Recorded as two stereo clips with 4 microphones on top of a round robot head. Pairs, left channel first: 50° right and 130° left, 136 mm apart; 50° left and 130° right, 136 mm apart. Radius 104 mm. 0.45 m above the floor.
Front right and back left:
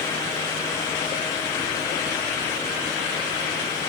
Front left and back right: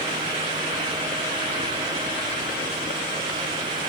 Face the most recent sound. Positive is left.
No sound to turn to.